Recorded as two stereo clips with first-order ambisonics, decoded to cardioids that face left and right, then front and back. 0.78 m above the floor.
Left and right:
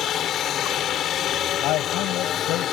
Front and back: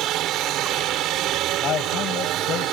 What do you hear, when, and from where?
0.0 s a helicopter: 145° left
1.6 s a man speaking: 55° left